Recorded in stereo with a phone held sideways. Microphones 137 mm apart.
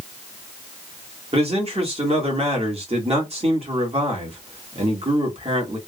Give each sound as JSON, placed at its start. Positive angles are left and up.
{"t": 1.3, "sound": "a man speaking", "side_deg": -50, "distance_m": 1.3}